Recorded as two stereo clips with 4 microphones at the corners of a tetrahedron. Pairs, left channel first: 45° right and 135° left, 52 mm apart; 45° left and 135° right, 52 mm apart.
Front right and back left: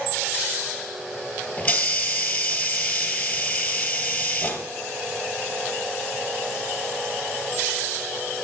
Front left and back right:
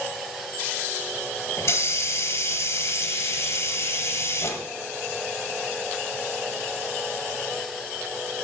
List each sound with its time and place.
1.6 s a hiss: 25° left, 1.5 m